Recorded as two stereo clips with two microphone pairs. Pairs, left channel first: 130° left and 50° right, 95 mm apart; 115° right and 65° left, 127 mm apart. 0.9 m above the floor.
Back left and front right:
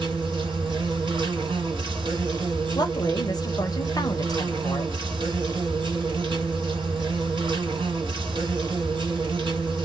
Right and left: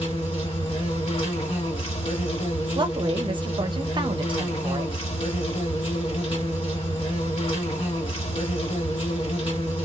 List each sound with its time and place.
0.0 s an insect: 80° right, 1.6 m
2.8 s a woman speaking: 100° left, 0.7 m